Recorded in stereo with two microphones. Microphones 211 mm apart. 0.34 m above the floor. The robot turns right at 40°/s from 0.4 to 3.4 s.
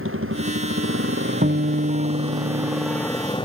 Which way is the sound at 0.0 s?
95° right.